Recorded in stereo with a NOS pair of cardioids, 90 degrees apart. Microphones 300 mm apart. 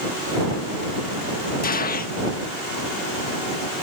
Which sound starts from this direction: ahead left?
A gunshot, at 1.6 s.